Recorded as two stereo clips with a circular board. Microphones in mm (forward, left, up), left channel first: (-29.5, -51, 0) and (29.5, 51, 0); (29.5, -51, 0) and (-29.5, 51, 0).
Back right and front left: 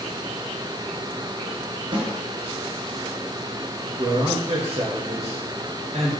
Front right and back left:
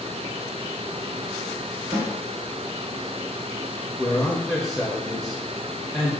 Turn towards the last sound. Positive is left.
turn(degrees=20)